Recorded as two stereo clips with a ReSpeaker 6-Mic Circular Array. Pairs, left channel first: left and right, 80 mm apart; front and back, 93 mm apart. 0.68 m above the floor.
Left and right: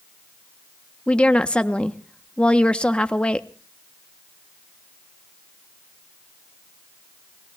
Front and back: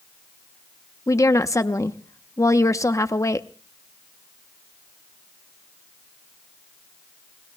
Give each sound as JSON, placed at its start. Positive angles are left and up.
{"t": 1.1, "sound": "a woman speaking", "azimuth_deg": 20, "distance_m": 0.7}